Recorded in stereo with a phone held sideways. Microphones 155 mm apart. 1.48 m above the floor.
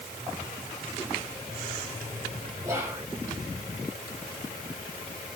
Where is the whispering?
20° right (ahead or behind), 3.5 m.